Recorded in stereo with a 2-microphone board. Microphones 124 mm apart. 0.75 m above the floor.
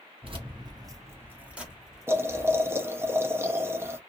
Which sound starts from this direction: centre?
Boiling, at 2.1 s.